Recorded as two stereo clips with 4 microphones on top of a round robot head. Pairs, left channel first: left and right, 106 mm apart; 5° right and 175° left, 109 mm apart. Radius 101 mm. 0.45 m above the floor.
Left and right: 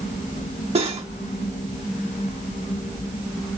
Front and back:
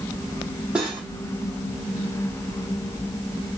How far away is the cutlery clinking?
About 2.5 m.